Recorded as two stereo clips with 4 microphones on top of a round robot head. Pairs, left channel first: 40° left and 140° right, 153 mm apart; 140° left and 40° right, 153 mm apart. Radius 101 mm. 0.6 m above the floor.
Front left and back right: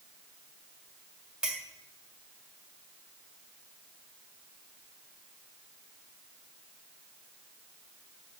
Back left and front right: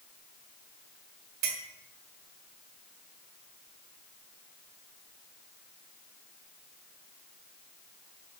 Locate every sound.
1.4 s a clink: 55° right, 1.8 m